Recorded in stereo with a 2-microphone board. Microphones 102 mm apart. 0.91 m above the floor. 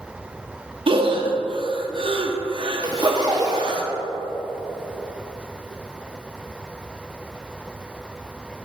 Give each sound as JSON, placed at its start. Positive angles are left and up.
{"t": 0.9, "sound": "breathing", "side_deg": -50, "distance_m": 0.8}
{"t": 2.8, "sound": "a zipper", "side_deg": -35, "distance_m": 1.1}